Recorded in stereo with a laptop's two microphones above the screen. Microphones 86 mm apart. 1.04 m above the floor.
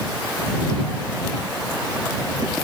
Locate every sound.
Only background noise.